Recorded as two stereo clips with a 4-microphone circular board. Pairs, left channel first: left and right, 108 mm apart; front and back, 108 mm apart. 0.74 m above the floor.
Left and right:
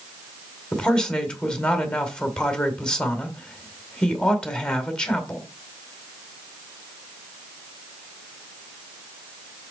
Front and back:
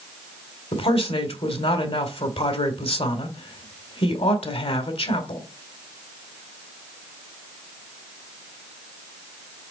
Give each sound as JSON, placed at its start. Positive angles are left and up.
{"t": 0.7, "sound": "a man speaking", "azimuth_deg": 10, "distance_m": 2.0}